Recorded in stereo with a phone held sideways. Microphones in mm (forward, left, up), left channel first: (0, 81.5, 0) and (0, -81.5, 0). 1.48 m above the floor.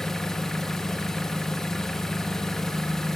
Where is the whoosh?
I don't hear a whoosh.